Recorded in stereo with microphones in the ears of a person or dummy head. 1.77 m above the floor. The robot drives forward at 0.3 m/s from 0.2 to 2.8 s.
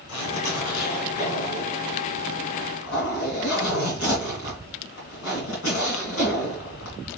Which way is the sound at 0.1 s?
80° left.